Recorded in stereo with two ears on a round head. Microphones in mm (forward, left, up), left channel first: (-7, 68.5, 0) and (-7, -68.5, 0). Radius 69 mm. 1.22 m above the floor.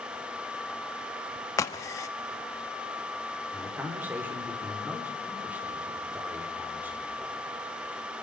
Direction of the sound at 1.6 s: 20° left (ahead or behind).